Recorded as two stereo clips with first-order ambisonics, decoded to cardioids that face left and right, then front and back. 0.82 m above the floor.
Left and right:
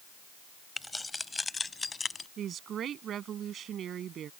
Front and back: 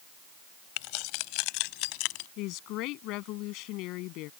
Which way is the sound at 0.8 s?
5° left.